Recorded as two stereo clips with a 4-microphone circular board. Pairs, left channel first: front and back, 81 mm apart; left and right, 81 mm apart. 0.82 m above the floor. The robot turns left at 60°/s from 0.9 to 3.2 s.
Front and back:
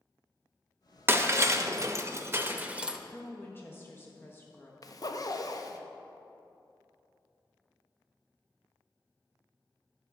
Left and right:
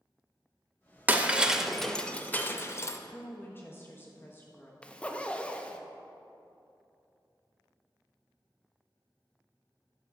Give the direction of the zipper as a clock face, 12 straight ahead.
11 o'clock.